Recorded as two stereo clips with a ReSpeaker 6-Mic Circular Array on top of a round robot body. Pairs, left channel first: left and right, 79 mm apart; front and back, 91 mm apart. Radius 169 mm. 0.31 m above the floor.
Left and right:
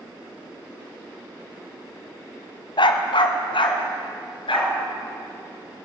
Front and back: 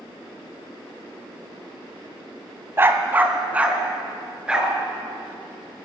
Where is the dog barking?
115° left, 1.3 m; by 5.9 s 95° left, 4 m.